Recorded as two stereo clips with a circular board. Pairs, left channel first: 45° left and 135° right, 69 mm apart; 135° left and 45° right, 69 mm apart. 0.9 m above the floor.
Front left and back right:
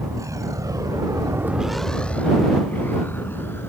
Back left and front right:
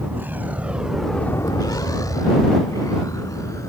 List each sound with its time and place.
0.0 s a vehicle: 105° right; by 3.7 s 100° left